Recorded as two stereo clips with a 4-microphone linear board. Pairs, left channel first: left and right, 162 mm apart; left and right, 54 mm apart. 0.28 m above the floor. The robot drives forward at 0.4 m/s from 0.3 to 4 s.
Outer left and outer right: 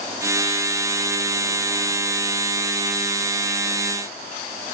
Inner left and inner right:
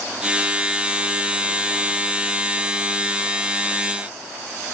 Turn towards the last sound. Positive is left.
No sound to turn to.